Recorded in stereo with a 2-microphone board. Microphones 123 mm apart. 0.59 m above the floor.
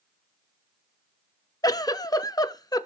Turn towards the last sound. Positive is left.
turn(degrees=30)  # may be behind; listen again after turning